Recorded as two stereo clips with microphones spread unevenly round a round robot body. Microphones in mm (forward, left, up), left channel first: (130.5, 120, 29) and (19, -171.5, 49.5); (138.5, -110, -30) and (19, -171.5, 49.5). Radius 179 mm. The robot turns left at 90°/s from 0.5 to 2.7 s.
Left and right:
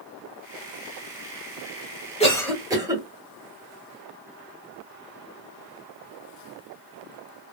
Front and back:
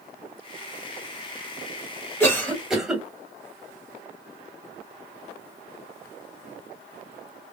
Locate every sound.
2.2 s a cough: 10° left, 1.7 m; by 3.0 s 35° right, 1.7 m